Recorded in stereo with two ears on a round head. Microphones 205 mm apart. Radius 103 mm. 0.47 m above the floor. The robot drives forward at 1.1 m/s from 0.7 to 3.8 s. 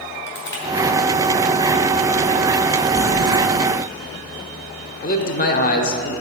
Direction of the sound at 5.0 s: 40° left (ahead or behind).